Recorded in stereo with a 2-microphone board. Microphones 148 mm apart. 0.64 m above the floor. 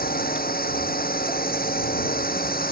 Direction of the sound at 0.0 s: 85° left.